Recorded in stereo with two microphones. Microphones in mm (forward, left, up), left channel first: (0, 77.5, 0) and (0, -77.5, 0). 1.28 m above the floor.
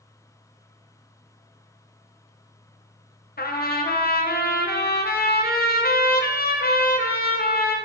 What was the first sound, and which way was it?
A trumpet, 85° left.